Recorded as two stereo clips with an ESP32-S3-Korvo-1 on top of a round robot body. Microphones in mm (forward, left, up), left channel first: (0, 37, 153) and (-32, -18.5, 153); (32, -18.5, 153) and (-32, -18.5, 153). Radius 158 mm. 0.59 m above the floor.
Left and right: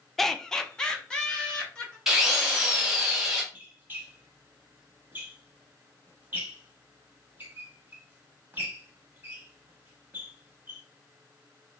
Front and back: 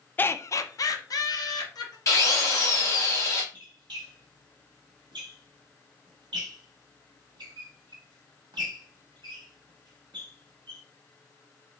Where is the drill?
35° right, 1.6 m.